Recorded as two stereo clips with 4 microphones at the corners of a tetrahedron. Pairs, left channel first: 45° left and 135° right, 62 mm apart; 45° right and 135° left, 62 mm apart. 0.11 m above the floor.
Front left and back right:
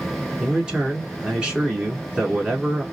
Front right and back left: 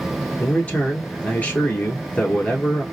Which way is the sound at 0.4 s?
75° right.